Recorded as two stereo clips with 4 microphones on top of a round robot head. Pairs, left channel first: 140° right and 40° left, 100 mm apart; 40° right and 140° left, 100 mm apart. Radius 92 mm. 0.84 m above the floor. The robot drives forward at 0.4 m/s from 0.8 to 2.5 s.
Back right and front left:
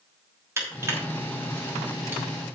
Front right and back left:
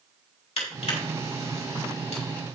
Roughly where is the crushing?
Ahead right.